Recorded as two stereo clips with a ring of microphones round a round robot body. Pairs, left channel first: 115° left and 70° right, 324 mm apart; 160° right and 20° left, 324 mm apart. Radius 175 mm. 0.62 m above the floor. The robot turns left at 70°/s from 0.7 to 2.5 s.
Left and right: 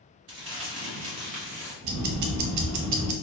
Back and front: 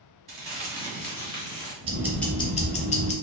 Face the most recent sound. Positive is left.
turn(degrees=-90)